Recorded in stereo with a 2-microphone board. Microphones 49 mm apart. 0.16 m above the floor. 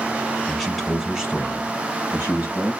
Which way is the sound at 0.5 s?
Centre (ahead or behind).